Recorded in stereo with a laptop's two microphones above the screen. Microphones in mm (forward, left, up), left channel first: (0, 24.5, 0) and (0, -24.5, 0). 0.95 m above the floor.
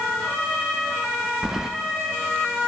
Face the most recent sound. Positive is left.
turn(degrees=-10)  # may be behind; listen again after turning